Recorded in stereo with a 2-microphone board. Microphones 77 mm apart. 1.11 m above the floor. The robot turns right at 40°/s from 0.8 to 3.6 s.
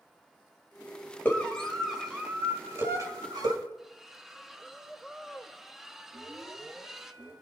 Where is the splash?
5° right (ahead or behind), 0.9 m.